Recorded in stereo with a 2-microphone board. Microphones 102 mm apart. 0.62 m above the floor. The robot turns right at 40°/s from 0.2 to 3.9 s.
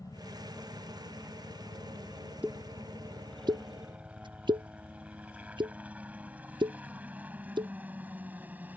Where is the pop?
15° right (ahead or behind); by 7.7 s 50° right (ahead or behind).